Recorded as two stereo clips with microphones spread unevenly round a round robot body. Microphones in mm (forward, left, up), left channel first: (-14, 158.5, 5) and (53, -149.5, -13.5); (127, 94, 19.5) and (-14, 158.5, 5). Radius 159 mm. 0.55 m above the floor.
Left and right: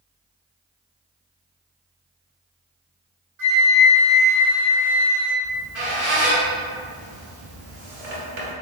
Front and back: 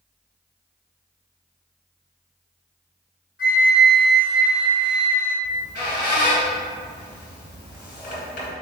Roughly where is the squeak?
Ahead right.